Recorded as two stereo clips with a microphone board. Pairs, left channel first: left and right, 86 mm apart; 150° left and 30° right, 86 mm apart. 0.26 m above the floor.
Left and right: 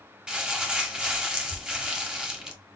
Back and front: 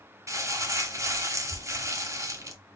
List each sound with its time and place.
0.3 s crumpling: 15° right, 0.8 m